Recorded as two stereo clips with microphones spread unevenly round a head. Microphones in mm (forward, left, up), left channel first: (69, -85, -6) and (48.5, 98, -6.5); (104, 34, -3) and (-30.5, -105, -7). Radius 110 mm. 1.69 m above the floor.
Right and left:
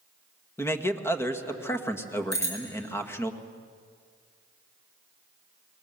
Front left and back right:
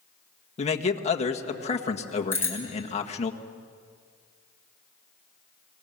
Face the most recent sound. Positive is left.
turn(degrees=-30)